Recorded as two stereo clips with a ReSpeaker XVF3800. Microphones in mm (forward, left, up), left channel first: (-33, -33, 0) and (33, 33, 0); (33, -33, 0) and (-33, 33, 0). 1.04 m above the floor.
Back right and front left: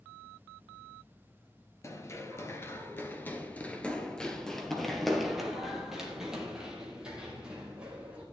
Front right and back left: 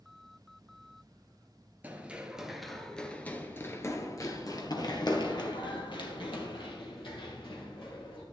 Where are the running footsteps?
165° right, 1.2 m; by 8.2 s 35° right, 3 m.